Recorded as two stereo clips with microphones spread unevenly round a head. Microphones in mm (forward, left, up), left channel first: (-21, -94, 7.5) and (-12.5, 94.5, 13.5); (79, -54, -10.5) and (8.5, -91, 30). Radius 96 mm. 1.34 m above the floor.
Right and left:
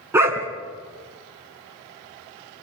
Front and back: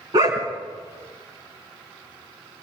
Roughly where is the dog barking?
Behind.